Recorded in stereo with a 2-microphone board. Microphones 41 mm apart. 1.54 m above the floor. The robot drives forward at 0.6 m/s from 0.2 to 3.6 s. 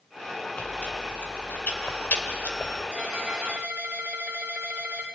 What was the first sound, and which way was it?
Chewing, 35° left (ahead or behind).